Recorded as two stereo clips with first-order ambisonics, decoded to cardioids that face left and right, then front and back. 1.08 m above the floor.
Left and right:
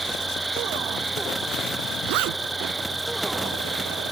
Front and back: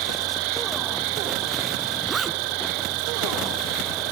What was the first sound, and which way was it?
An insect, 175° right.